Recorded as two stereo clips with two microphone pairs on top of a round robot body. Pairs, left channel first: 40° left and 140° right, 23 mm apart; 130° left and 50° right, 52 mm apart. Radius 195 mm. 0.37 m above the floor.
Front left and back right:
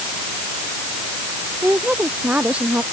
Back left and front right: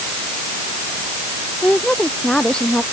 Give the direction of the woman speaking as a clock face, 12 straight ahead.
5 o'clock.